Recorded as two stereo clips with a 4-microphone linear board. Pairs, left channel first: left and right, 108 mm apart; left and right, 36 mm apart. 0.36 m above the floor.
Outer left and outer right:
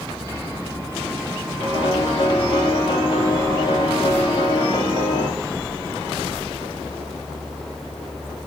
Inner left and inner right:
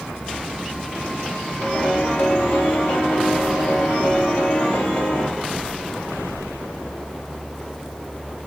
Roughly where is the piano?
Left.